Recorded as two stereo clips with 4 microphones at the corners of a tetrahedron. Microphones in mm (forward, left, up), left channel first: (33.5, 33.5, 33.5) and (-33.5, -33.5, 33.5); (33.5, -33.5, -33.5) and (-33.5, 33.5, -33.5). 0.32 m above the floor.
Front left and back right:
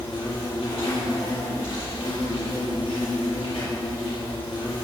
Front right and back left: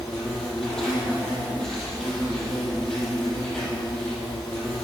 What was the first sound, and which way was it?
An insect, 40° left.